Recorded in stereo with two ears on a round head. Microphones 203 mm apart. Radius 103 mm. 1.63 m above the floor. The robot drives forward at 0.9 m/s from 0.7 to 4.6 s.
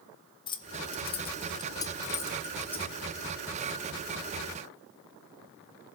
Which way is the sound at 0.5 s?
20° left (ahead or behind).